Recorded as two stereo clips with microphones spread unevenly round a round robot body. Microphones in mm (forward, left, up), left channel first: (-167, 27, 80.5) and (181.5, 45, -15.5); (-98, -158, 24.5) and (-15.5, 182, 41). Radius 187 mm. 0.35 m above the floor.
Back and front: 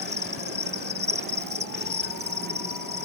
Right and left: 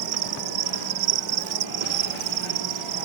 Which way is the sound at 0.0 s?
65° left.